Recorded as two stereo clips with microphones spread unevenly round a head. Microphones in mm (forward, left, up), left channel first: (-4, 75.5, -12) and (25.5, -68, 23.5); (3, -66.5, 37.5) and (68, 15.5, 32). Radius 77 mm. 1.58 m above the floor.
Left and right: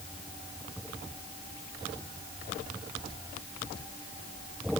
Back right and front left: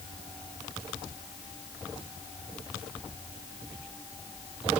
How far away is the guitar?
I don't hear a guitar.